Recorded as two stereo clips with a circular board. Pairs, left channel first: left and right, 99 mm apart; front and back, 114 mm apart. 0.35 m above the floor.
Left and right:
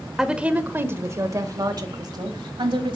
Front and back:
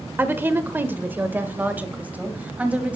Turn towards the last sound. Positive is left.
turn(degrees=-105)